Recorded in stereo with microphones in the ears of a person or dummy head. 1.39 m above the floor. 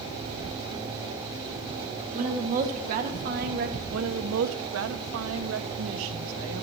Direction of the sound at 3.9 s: 80° right.